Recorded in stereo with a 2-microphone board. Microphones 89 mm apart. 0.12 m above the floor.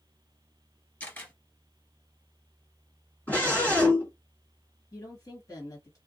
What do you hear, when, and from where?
1.0 s a camera shutter: 20° left (ahead or behind), 2 m
3.3 s a scream: 15° left (ahead or behind), 1.7 m
4.9 s a woman speaking: 40° left (ahead or behind), 1.8 m